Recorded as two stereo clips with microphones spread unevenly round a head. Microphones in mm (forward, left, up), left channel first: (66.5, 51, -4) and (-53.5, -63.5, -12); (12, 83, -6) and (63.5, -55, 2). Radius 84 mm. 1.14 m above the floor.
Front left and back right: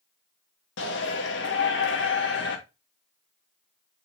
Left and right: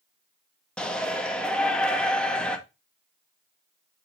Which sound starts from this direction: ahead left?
A shout, at 0.8 s.